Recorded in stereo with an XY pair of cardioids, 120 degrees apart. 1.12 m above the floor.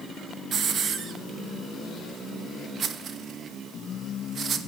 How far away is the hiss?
About 0.9 m.